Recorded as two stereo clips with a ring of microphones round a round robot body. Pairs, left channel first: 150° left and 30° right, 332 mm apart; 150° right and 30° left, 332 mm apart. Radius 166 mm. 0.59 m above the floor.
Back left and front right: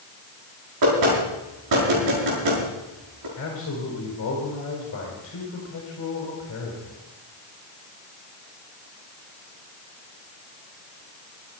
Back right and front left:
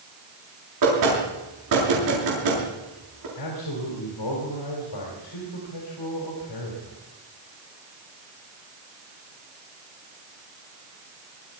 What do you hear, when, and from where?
0.8 s knocking: straight ahead, 7 m
3.4 s a man speaking: 160° right, 4 m